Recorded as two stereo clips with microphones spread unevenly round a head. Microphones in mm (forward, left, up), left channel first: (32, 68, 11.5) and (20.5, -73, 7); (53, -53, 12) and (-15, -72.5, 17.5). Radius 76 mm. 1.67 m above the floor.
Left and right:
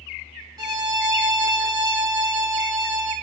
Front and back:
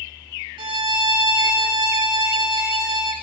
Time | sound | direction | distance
0.6 | a violin | 165° right | 1.0 m